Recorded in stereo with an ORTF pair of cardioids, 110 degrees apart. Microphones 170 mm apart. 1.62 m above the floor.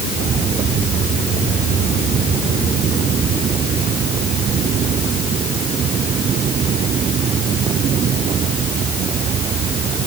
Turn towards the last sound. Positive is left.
No sound to turn to.